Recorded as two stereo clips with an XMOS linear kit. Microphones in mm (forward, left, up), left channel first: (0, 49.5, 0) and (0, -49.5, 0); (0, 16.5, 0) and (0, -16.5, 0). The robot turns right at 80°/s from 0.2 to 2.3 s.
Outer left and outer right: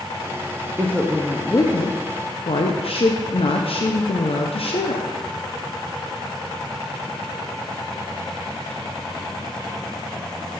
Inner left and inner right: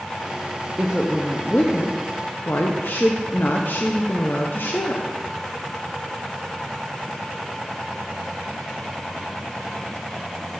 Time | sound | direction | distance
0.8 | a woman speaking | 30° right | 0.6 m